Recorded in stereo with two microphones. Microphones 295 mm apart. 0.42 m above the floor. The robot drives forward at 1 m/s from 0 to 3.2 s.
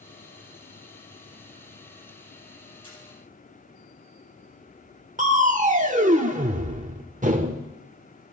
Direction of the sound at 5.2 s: 25° right (ahead or behind).